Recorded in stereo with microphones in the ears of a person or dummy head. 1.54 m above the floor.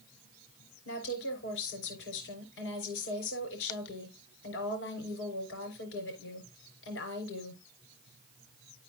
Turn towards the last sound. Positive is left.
turn(degrees=80)